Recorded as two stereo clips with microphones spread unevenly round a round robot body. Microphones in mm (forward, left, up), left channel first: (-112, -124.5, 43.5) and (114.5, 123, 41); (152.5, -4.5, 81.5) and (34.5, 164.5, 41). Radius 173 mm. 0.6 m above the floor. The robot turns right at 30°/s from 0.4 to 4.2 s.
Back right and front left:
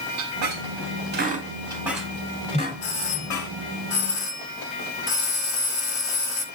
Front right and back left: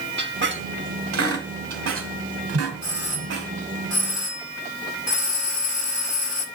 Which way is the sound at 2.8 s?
130° right.